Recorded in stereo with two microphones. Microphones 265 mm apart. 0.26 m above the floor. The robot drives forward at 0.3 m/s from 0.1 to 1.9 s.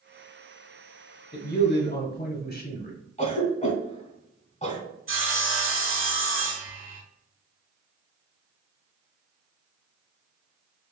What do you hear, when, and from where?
1.3 s a man speaking: 40° left (ahead or behind), 1.1 m
3.2 s a cough: 25° left (ahead or behind), 1.2 m
5.1 s sawing: 50° right (ahead or behind), 0.9 m